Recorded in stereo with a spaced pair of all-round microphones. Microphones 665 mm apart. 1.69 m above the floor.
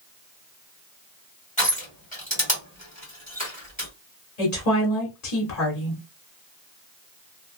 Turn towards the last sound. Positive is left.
turn(degrees=70)  # may be behind; listen again after turning